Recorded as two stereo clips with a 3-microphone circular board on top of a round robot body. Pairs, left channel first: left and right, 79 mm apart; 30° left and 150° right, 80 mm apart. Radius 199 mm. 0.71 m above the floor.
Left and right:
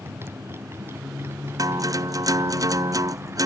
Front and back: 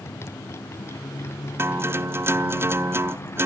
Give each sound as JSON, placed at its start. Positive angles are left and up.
{"t": 0.0, "sound": "a motorcycle", "azimuth_deg": -30}
{"t": 1.6, "sound": "a guitar", "azimuth_deg": -100}